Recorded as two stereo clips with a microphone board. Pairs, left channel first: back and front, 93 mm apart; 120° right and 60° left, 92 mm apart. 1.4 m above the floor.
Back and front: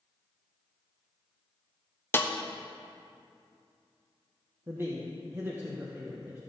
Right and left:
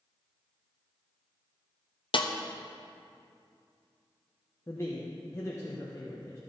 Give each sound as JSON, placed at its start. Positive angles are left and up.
{"t": 2.1, "sound": "a snare drum", "azimuth_deg": -115, "distance_m": 0.7}
{"t": 4.7, "sound": "a man speaking", "azimuth_deg": -65, "distance_m": 1.3}